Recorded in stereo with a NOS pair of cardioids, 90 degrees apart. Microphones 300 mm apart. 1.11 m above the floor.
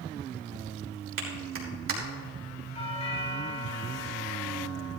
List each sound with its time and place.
1.2 s a clap: 45° right, 3.5 m
2.8 s a doorbell: 20° left, 4 m